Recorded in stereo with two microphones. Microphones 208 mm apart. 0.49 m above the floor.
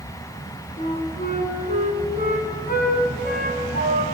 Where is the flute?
45° left (ahead or behind), 2 m.